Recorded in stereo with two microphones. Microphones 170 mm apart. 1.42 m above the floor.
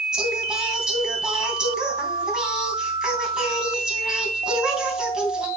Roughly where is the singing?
Centre.